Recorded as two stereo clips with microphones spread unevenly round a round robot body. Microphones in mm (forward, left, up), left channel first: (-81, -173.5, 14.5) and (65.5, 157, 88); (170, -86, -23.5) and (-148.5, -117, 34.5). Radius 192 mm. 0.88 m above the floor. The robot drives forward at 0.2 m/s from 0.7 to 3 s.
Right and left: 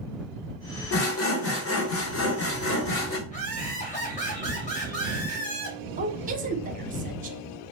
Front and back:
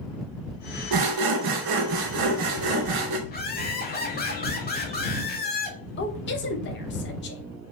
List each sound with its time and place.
0.9 s sawing: 155° right, 0.7 m; by 3.2 s 165° right, 1.1 m
3.3 s laughter: 50° right, 1.4 m
6.0 s a woman speaking: 5° right, 0.6 m